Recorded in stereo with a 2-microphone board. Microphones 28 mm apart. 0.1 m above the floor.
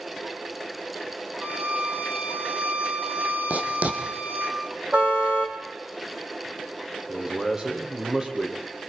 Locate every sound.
1.4 s a violin: 70° right (ahead or behind), 3.5 m
3.5 s writing: 70° right (ahead or behind), 3 m
4.9 s a car horn: 45° right (ahead or behind), 2.5 m
7.1 s a man speaking: 30° right (ahead or behind), 4 m